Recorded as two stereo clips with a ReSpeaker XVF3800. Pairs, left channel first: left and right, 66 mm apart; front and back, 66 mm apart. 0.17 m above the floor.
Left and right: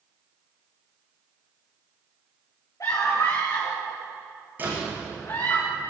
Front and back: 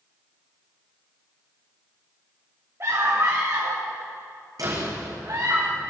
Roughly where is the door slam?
Behind right.